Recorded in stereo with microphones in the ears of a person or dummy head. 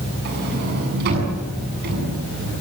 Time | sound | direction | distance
0.2 | a sliding door | 60° right (ahead or behind) | 7.5 m